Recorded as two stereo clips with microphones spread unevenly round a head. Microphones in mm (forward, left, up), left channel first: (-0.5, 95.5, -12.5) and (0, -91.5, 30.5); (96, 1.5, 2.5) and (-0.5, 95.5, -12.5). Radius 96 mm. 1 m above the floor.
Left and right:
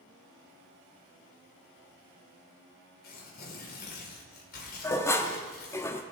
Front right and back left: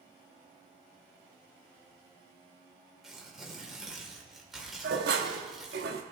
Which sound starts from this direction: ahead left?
Tearing paper, at 3.0 s.